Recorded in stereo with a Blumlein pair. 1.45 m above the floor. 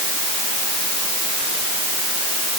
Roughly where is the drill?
I don't hear a drill.